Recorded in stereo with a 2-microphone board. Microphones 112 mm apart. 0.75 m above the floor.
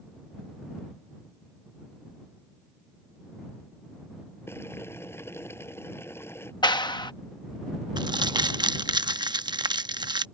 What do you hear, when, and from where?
4.5 s boiling: 20° left (ahead or behind)
6.6 s a clap: 40° left (ahead or behind)
8.0 s crumpling: 40° right (ahead or behind)